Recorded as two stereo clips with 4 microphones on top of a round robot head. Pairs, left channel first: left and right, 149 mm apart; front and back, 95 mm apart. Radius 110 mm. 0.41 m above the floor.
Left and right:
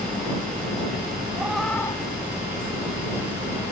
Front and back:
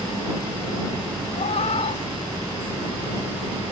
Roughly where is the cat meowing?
Ahead.